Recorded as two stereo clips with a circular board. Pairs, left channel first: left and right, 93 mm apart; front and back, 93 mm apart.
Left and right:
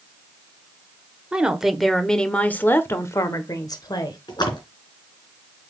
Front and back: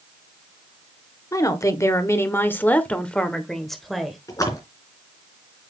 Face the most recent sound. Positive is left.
turn(degrees=50)